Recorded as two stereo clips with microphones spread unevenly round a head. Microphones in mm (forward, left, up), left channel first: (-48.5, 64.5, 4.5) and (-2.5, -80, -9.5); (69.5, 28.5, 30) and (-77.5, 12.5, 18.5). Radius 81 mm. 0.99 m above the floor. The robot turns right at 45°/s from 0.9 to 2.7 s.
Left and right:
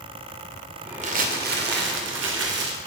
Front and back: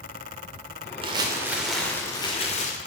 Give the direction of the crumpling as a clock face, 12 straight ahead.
4 o'clock.